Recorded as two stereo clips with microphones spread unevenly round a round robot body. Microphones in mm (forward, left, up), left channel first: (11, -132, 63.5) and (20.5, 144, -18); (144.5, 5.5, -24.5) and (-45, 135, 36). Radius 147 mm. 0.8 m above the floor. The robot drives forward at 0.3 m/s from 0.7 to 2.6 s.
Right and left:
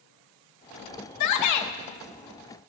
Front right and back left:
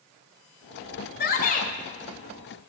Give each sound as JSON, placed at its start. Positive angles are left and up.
{"t": 1.2, "sound": "a shout", "azimuth_deg": -60, "distance_m": 0.7}